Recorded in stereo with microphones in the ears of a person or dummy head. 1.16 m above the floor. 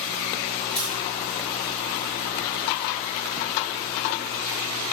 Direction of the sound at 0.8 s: 10° left (ahead or behind).